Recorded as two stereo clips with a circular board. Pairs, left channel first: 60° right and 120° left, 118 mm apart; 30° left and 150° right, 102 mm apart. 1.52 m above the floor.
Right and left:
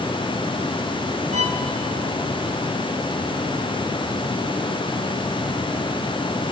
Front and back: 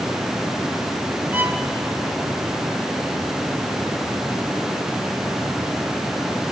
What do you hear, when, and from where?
1.3 s a violin: 135° left, 1.7 m